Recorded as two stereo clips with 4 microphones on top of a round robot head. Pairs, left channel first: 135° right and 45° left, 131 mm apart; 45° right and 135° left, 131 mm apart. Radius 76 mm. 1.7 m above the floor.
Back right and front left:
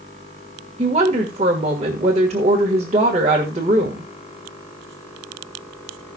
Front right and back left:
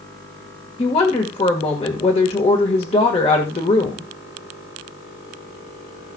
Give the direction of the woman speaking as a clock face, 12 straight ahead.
12 o'clock.